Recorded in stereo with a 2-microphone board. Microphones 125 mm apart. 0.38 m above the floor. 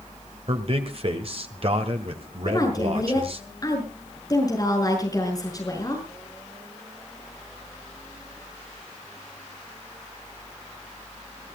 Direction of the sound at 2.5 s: 30° left (ahead or behind).